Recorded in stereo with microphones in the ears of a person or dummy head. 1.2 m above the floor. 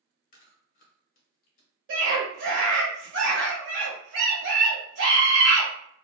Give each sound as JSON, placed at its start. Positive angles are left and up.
{"t": 0.3, "sound": "chewing", "side_deg": 45, "distance_m": 1.0}
{"t": 1.9, "sound": "a scream", "side_deg": -55, "distance_m": 1.4}